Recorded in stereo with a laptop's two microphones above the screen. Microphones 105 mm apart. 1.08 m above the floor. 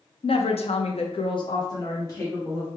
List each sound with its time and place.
0.2 s a woman speaking: 60° left (ahead or behind), 0.6 m; by 2.7 s 20° left (ahead or behind), 1.3 m